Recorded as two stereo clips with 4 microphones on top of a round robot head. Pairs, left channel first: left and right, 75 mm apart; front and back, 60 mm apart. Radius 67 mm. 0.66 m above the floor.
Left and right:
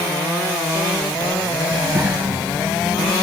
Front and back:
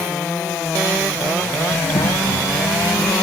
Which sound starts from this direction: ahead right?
A child speaking, at 1.7 s.